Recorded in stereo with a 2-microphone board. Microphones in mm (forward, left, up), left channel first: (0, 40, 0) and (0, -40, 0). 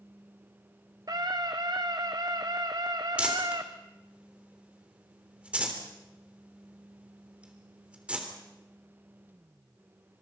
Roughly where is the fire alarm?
No fire alarm in this recording.